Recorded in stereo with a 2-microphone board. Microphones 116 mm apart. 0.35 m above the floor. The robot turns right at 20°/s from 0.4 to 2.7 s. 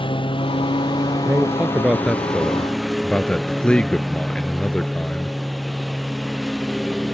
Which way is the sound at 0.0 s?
135° left.